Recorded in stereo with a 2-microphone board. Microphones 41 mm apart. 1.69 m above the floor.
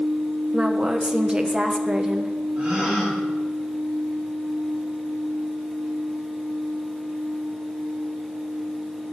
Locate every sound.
0.5 s a woman speaking: 20° right (ahead or behind), 1.2 m
2.6 s a gasp: 30° right (ahead or behind), 4 m